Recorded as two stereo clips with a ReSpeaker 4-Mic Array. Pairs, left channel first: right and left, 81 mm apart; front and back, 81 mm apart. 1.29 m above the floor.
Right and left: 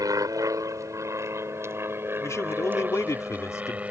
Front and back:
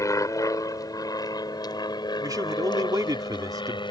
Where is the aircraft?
45° left; by 3.9 s 15° left.